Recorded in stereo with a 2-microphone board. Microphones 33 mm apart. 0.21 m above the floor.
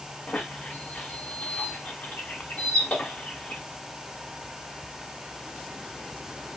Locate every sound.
0.3 s a squeak: 45° left (ahead or behind), 1.2 m